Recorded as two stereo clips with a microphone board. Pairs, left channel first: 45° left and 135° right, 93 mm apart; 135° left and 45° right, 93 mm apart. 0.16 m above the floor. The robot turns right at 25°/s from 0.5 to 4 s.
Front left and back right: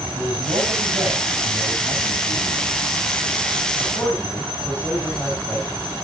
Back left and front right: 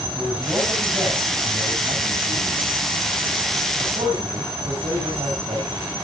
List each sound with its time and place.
0.1 s a man speaking: 120° right, 9 m; by 5.8 s 35° right, 9 m